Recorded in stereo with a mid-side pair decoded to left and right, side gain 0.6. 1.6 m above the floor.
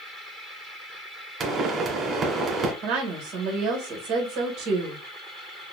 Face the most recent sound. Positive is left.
turn(degrees=-65)